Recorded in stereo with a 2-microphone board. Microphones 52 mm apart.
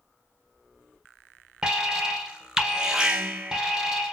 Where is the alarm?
15° right (ahead or behind), 0.6 m.